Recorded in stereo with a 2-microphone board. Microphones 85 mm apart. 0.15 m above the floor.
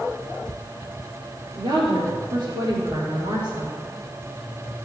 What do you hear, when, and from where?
1.6 s a woman speaking: 60° right (ahead or behind), 3.5 m; by 3.7 s 65° right (ahead or behind), 5.5 m